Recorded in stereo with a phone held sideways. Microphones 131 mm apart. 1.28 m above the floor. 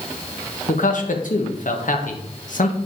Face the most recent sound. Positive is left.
turn(degrees=85)